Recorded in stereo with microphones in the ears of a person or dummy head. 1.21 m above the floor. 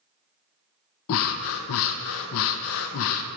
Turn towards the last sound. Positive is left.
turn(degrees=70)  # may be behind; listen again after turning